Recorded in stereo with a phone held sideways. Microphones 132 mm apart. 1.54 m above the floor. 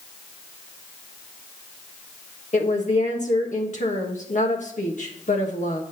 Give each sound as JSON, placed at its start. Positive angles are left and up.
{"t": 2.5, "sound": "a woman speaking", "side_deg": 65, "distance_m": 1.5}